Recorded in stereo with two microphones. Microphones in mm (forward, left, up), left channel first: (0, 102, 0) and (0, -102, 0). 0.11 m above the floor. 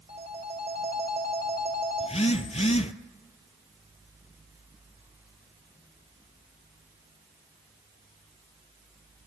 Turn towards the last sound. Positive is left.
turn(degrees=35)  # may be behind; listen again after turning